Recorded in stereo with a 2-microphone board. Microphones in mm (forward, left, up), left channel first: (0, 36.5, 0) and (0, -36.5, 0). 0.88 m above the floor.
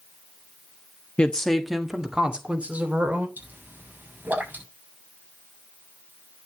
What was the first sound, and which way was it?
A woman speaking, 20° left (ahead or behind).